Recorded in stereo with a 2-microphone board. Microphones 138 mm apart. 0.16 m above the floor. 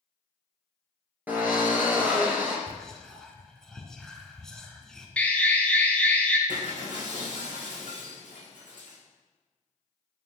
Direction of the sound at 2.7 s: 5° left (ahead or behind).